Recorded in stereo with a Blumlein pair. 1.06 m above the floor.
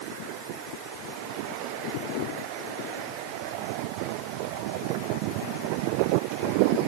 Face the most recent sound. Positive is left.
No sound to turn to.